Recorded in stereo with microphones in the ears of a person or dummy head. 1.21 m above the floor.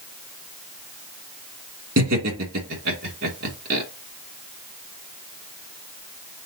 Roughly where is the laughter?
Right.